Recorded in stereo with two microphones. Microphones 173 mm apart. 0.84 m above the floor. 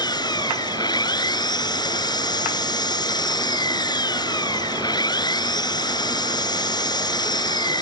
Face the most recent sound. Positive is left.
turn(degrees=25)  # may be behind; listen again after turning